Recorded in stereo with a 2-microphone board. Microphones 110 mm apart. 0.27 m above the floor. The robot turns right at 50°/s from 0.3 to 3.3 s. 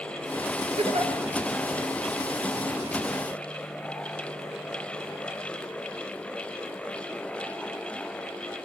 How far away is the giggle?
About 5.5 m.